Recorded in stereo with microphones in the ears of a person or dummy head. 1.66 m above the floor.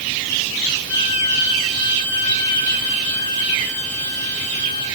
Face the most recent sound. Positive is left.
turn(degrees=55)  # may be behind; listen again after turning